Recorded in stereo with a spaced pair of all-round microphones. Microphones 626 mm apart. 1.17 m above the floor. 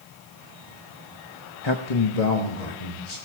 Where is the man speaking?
40° left (ahead or behind), 1.1 m; by 3.2 s 85° left, 3 m.